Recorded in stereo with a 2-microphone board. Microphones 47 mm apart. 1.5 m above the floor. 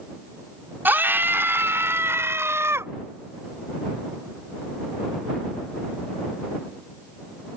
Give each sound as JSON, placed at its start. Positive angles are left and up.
{"t": 0.8, "sound": "a scream", "side_deg": -50}